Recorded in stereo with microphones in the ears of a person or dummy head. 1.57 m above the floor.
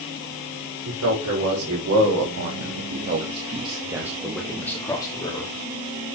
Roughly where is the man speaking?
Right.